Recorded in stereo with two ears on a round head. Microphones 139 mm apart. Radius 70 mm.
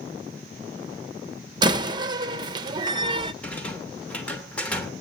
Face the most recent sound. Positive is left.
turn(degrees=10)  # may be behind; listen again after turning